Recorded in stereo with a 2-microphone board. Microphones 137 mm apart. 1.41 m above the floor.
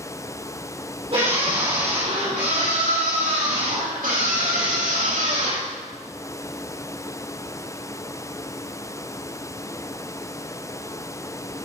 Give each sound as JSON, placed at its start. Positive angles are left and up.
{"t": 1.1, "sound": "a scream", "side_deg": -45, "distance_m": 5.5}